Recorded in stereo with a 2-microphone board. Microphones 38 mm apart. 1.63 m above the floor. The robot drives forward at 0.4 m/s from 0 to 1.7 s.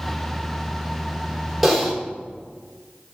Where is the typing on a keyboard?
Centre (ahead or behind), 1.4 m.